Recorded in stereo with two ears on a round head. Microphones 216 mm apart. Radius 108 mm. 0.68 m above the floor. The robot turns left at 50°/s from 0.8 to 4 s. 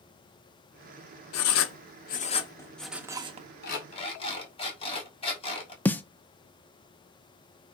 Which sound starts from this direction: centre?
A snare drum, at 5.8 s.